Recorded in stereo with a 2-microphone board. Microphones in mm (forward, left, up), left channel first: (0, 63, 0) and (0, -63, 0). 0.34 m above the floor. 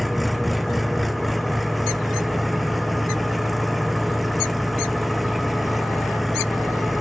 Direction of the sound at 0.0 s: Centre (ahead or behind).